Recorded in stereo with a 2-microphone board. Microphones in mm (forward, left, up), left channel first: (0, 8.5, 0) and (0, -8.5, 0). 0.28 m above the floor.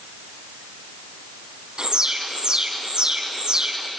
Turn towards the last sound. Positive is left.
turn(degrees=-45)  # may be behind; listen again after turning